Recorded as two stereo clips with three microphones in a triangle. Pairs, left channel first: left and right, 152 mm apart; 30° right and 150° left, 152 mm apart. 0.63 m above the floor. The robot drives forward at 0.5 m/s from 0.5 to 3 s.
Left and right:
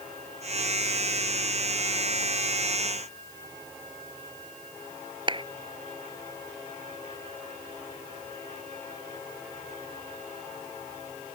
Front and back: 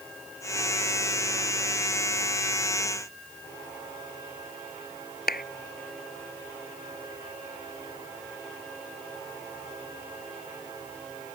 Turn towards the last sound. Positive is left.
turn(degrees=-35)